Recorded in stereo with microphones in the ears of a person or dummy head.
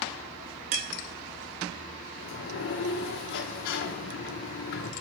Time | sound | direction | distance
2.2 | a sliding door | 50° left (ahead or behind) | 0.8 m